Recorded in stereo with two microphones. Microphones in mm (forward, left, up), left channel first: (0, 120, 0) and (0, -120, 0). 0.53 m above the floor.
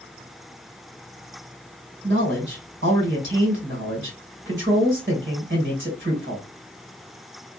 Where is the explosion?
No explosion in this recording.